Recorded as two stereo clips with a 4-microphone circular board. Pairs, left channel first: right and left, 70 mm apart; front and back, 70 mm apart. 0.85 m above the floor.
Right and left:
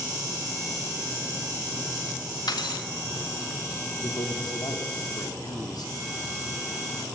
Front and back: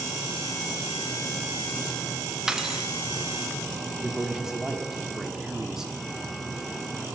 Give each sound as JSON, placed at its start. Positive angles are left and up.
{"t": 2.5, "sound": "cutlery clinking", "azimuth_deg": -100, "distance_m": 0.6}
{"t": 4.0, "sound": "a man speaking", "azimuth_deg": -95, "distance_m": 1.7}